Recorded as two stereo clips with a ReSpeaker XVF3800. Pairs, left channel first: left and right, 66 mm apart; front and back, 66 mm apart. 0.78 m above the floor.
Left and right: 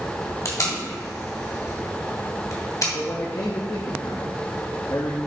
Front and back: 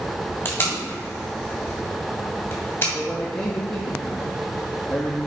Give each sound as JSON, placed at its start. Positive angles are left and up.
{"t": 0.5, "sound": "tape being pulled", "azimuth_deg": 55, "distance_m": 2.0}
{"t": 2.9, "sound": "a man speaking", "azimuth_deg": 70, "distance_m": 0.8}